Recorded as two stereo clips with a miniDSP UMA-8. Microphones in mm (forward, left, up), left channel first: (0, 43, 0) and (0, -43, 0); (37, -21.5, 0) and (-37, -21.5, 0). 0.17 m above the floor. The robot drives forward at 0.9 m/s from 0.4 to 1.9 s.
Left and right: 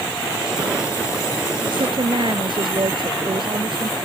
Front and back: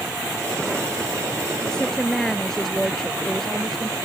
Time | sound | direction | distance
1.7 | a woman speaking | 80° right | ?